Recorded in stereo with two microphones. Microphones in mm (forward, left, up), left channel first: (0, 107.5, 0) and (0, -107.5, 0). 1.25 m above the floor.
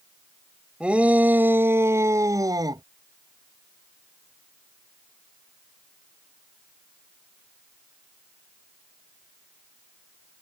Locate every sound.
0.8 s a shout: 5° right (ahead or behind); by 2.8 s 20° right (ahead or behind)